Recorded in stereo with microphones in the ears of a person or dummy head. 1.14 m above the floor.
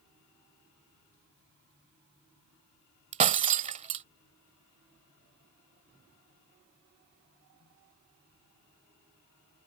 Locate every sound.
3.1 s breaking glass: 35° right (ahead or behind)